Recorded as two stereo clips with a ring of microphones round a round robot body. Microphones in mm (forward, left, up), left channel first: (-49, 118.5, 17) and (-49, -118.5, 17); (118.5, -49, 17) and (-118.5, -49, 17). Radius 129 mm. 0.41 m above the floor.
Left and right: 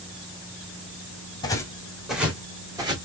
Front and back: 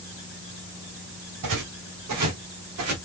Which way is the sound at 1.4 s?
165° left.